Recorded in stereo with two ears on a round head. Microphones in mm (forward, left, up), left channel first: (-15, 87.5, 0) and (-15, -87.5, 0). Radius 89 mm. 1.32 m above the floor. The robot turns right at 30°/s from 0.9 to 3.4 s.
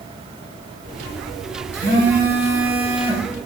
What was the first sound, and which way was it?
A phone buzzing, 55° right.